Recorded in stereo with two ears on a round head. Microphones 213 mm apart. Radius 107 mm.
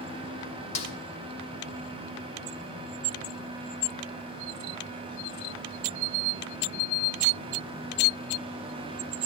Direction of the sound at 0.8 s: 30° left (ahead or behind).